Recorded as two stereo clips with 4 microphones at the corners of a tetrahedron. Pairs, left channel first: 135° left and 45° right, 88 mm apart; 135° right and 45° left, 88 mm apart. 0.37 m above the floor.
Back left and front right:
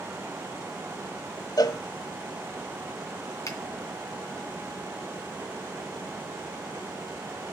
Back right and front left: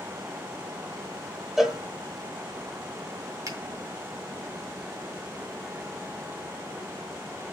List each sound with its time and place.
1.6 s a cowbell: 130° left, 1.3 m
3.5 s a finger snap: 90° left, 2.5 m